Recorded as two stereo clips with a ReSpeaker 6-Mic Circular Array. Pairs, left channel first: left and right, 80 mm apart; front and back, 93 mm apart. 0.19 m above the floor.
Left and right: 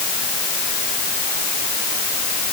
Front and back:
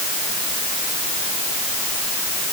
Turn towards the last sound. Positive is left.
No sound to turn to.